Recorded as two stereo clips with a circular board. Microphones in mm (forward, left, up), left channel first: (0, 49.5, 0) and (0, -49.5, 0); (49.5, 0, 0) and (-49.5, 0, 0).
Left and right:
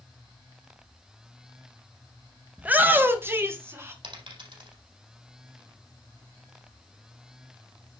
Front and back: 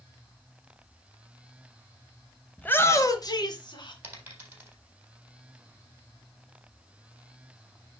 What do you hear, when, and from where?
2.6 s a shout: 45° right, 0.9 m; by 3.9 s 30° right, 2 m
4.0 s a dropped coin: 110° right, 4 m